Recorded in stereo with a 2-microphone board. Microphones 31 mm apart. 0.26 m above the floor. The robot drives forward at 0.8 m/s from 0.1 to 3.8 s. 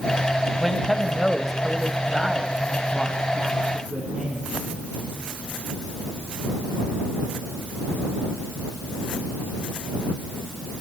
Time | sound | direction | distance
0.6 | a man speaking | 5° left (ahead or behind) | 1.1 m